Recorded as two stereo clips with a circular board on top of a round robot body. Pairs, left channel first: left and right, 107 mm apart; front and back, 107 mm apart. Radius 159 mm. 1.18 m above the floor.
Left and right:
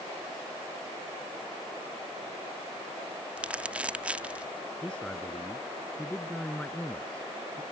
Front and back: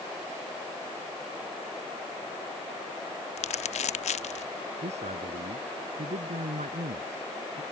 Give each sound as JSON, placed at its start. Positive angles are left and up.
{"t": 3.4, "sound": "crumpling", "azimuth_deg": -10}
{"t": 4.8, "sound": "a man speaking", "azimuth_deg": 170}